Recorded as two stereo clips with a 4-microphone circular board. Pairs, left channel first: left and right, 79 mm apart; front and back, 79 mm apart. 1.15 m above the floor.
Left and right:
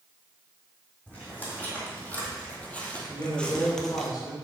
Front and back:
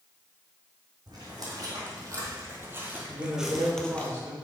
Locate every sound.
1.1 s footsteps: 155° left, 2.5 m; by 4.1 s 15° left, 1.2 m
3.1 s a man speaking: 120° left, 1.9 m